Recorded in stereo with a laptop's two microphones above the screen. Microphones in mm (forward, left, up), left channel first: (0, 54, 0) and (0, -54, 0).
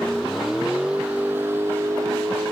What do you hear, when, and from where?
0.0 s a vehicle: 5° left (ahead or behind); by 2.5 s 35° right (ahead or behind)